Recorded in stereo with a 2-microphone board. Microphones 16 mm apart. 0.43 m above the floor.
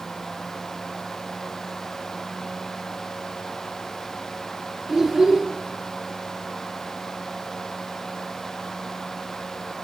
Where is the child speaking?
30° right (ahead or behind), 4.5 m.